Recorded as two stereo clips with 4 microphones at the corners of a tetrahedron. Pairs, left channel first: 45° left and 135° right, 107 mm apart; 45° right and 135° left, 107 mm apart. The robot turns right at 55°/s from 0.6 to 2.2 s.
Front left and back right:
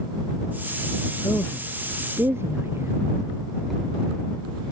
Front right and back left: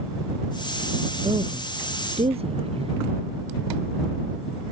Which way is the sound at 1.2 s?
105° left.